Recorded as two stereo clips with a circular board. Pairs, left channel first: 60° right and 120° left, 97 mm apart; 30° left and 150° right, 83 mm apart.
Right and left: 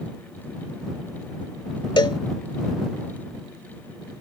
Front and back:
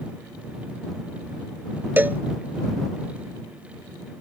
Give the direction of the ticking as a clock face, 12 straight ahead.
No ticking in this recording.